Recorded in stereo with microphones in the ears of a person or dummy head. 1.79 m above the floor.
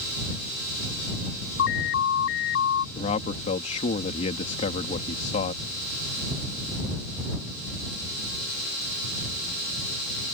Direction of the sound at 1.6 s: 75° left (ahead or behind).